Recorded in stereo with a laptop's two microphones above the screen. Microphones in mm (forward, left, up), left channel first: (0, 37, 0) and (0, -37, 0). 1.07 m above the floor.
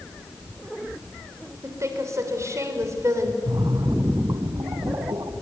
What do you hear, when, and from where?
1.6 s a woman speaking: 40° right (ahead or behind), 3.5 m
3.5 s a splash: 60° right (ahead or behind), 1.7 m